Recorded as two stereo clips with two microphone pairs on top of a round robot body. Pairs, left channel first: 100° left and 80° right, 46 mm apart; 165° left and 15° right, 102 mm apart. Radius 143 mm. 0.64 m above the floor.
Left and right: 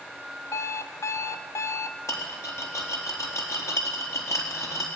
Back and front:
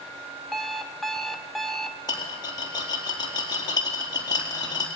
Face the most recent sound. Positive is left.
turn(degrees=115)